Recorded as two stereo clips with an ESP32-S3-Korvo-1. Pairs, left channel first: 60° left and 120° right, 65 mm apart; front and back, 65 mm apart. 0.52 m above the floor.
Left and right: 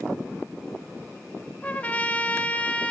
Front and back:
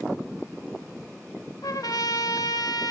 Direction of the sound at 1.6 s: 5° right.